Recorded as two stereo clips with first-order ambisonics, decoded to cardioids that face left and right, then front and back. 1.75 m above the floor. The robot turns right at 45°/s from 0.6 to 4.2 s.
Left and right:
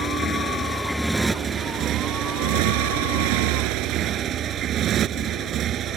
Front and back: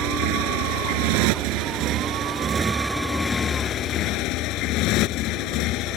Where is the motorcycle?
160° left; by 6.0 s 35° right.